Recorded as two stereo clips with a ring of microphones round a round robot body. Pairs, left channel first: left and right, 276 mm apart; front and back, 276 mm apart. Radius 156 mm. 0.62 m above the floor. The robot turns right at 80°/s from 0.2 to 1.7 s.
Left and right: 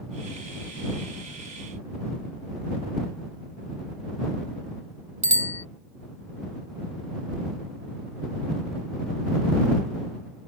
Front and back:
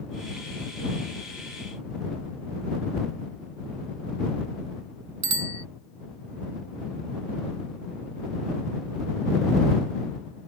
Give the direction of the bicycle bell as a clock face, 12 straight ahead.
5 o'clock.